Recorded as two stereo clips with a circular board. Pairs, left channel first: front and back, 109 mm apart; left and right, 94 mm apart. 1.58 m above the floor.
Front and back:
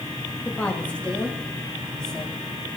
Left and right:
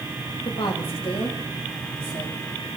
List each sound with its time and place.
0.5 s a woman speaking: 75° left, 2.5 m; by 2.4 s 85° left, 4 m